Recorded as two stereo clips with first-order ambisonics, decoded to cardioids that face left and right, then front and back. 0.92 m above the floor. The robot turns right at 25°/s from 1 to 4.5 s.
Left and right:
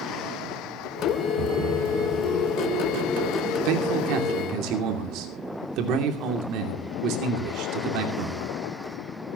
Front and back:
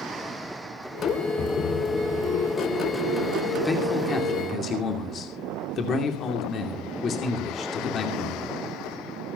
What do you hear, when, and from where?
1.4 s a thud: 60° right, 3 m; by 2.8 s 25° right, 3 m
3.6 s a man speaking: 80° right, 2.5 m; by 8.5 s 60° right, 2.5 m